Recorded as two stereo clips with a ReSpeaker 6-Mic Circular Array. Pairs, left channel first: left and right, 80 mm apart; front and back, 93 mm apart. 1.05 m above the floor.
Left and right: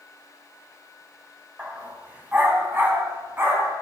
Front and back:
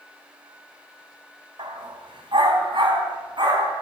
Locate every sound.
1.6 s a dog barking: 160° right, 2 m; by 3.8 s 150° right, 3 m